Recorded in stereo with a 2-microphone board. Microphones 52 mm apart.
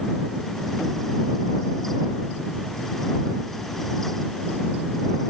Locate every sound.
Only background noise.